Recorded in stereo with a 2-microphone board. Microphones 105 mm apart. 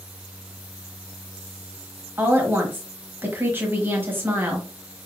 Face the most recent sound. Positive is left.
turn(degrees=-20)  # may be behind; listen again after turning